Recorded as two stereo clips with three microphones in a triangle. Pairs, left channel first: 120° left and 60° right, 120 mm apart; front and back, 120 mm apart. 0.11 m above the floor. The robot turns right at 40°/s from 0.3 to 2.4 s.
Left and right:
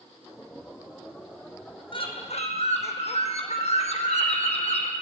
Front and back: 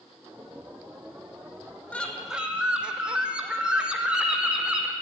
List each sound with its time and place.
1.9 s a bird: 80° left, 1.1 m; by 4.9 s 100° left, 1.1 m